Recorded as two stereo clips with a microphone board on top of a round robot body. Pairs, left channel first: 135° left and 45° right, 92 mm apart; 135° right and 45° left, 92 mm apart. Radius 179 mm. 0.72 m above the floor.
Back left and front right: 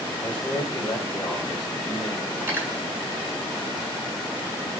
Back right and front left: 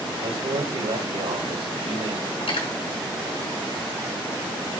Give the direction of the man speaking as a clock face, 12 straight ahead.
10 o'clock.